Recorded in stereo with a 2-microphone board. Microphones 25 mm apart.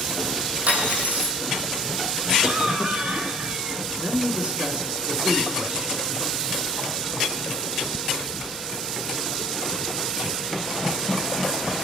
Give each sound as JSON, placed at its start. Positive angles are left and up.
{"t": 0.7, "sound": "cutlery clinking", "side_deg": -80, "distance_m": 5.5}
{"t": 2.4, "sound": "a cough", "side_deg": -55, "distance_m": 3.0}
{"t": 4.0, "sound": "a man speaking", "side_deg": -45, "distance_m": 2.5}